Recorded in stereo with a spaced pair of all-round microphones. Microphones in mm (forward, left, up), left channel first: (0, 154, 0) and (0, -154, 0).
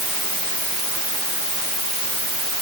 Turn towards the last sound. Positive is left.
No sound to turn to.